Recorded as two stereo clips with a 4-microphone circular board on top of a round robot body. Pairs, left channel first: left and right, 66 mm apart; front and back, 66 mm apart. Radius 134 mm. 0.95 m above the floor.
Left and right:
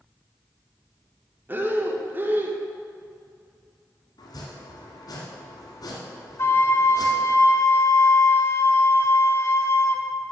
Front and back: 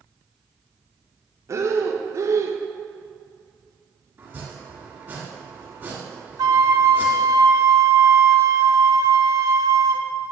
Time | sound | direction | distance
1.5 | breathing | 145° right | 1.3 m
4.2 | chopping | 120° left | 1.6 m
6.4 | a flute | 145° left | 0.6 m